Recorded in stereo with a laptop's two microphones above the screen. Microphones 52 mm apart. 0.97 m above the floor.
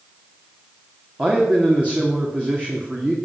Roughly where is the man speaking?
Right.